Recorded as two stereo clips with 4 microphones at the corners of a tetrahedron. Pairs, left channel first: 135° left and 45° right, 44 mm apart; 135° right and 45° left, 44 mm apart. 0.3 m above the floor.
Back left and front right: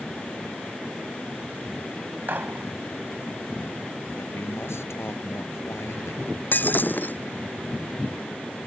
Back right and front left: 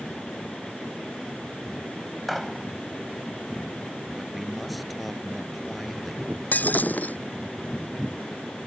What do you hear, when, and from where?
2.3 s a gunshot: 45° right
4.2 s a man speaking: 135° left
6.5 s breaking glass: straight behind